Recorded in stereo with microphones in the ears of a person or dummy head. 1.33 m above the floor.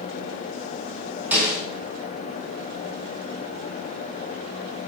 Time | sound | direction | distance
1.3 | a snare drum | 15° right (ahead or behind) | 4.5 m